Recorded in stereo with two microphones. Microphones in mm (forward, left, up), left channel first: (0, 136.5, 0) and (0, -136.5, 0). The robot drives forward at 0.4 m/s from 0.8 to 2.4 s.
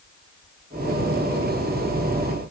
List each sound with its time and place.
Only background noise.